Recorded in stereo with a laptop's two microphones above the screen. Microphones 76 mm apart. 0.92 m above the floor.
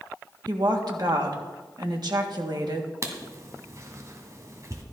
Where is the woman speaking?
65° right (ahead or behind), 1.6 m.